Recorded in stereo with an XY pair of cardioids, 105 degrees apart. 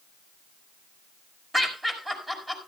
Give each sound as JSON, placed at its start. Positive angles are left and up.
{"t": 1.5, "sound": "laughter", "azimuth_deg": -15, "distance_m": 5.0}